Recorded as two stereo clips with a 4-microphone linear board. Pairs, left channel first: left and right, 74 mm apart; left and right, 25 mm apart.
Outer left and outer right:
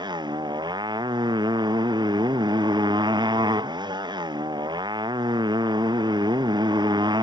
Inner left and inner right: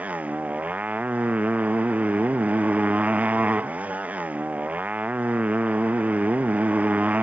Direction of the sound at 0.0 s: 80° right.